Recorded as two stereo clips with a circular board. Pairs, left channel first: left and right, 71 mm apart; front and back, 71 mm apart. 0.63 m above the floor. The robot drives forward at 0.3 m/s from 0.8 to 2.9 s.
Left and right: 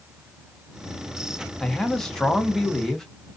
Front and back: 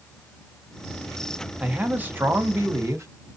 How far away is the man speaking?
About 0.7 m.